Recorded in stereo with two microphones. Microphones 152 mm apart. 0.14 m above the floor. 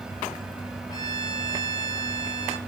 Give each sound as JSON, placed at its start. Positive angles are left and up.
{"t": 0.9, "sound": "a violin", "side_deg": 20, "distance_m": 1.6}